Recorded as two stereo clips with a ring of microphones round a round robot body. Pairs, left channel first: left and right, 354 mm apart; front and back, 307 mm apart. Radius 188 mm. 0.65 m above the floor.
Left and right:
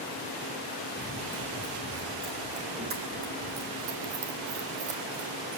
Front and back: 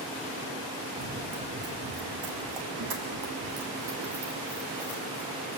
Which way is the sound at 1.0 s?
175° right.